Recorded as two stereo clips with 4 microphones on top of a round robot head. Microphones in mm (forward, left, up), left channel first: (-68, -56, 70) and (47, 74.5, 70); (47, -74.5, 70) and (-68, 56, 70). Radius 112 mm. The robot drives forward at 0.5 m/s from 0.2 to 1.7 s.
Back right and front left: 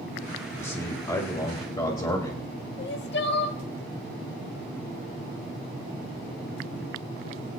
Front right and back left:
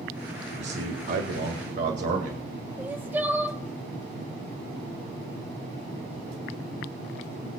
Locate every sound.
0.6 s a man speaking: 155° left, 1.7 m; by 2.5 s 160° left, 2 m
2.8 s crying: 150° right, 1.1 m